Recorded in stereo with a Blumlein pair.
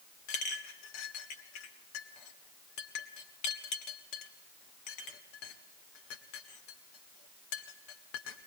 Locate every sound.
0.3 s a clink: 40° left, 1.9 m